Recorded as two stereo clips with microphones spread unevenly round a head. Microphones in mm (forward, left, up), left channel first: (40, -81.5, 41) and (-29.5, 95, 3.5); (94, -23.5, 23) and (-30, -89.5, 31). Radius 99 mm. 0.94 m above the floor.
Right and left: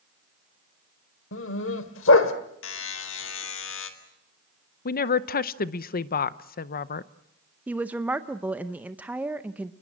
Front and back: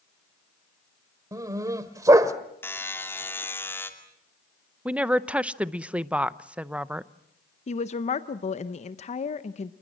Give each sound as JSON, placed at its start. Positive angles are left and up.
{"t": 1.3, "sound": "a dog barking", "azimuth_deg": -85, "distance_m": 1.5}
{"t": 2.6, "sound": "a buzzer", "azimuth_deg": -45, "distance_m": 2.5}
{"t": 4.8, "sound": "a woman speaking", "azimuth_deg": -70, "distance_m": 0.7}
{"t": 7.7, "sound": "a woman speaking", "azimuth_deg": 40, "distance_m": 0.7}